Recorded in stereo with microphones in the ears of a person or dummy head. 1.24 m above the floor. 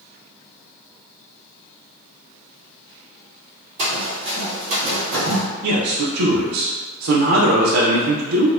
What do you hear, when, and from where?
3.8 s running footsteps: 30° right (ahead or behind), 1.7 m; by 5.4 s 50° right (ahead or behind), 2 m
5.6 s a man speaking: 85° right, 0.6 m